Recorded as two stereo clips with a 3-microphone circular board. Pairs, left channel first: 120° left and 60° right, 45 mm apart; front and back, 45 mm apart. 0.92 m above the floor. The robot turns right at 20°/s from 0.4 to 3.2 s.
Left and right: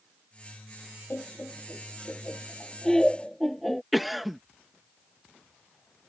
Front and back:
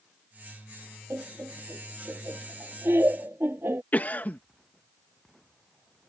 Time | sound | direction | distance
1.1 | laughter | 160° left | ?
3.9 | a cough | 25° left | ?